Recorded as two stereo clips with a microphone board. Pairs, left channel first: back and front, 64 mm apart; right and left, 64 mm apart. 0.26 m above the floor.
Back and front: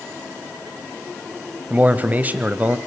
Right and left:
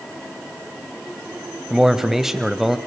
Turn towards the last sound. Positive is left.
turn(degrees=10)